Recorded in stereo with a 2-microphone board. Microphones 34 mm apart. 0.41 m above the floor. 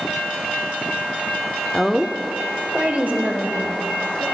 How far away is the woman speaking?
About 0.8 m.